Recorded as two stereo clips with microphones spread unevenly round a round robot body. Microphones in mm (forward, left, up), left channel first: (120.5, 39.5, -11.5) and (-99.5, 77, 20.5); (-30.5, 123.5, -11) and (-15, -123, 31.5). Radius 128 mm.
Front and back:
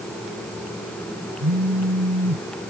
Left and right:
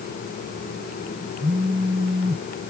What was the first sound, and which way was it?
A phone buzzing, 160° right.